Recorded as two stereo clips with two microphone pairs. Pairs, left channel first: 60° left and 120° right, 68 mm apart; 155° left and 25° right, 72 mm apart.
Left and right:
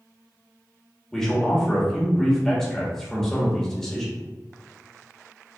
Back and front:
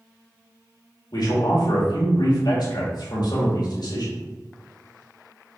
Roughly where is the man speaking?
Behind left.